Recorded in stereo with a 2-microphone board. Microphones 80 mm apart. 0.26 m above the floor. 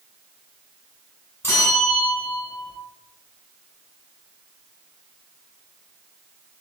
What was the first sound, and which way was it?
A bell, 30° left (ahead or behind).